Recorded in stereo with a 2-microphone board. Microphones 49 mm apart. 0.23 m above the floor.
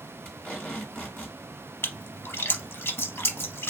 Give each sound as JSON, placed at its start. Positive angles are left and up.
{"t": 0.2, "sound": "tape being pulled", "side_deg": 35, "distance_m": 2.0}
{"t": 1.8, "sound": "a splash", "side_deg": 55, "distance_m": 0.6}